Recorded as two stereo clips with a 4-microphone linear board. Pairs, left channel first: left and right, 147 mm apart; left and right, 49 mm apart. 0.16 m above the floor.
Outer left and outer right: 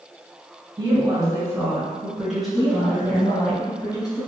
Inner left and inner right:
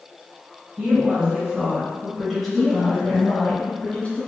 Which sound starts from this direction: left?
A woman speaking, at 2.5 s.